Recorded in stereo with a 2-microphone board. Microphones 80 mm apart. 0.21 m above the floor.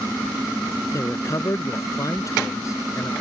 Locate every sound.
0.9 s a man speaking: 45° left (ahead or behind)